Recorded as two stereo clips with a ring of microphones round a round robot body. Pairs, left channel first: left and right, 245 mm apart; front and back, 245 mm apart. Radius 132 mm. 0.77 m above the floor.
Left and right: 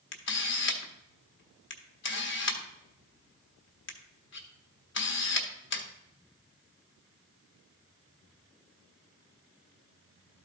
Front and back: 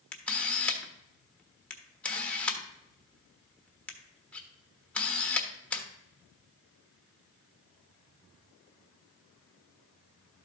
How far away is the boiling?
No boiling in this recording.